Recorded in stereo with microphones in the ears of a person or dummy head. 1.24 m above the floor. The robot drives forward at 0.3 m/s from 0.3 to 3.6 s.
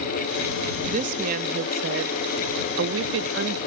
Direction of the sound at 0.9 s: 50° right (ahead or behind).